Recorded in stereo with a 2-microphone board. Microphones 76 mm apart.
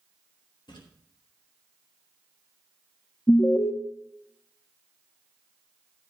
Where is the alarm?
35° left (ahead or behind), 1.0 m.